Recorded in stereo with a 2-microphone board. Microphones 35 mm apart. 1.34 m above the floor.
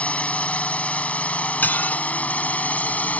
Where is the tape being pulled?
I don't hear tape being pulled.